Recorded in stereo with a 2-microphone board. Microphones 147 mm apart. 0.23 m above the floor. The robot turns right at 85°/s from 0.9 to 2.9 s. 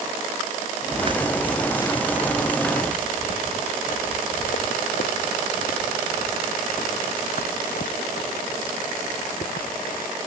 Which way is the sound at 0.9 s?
50° right (ahead or behind).